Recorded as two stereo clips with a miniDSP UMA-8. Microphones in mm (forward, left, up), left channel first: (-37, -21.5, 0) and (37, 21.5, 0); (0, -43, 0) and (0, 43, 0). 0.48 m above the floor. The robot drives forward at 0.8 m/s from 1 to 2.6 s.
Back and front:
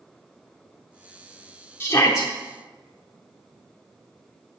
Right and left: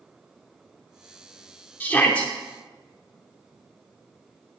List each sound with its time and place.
1.8 s a shout: 135° right, 0.8 m; by 2.3 s 160° right, 1.0 m